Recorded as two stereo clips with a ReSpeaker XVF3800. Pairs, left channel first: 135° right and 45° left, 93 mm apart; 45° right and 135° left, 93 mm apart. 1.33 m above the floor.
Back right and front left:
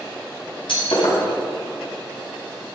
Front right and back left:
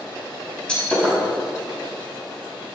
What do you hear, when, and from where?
0.7 s breaking glass: 125° right, 5 m